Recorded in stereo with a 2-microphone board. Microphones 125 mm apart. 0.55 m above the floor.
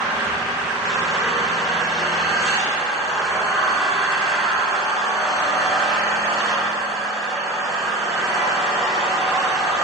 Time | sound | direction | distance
0.0 | an engine running | centre (ahead or behind) | 4.5 m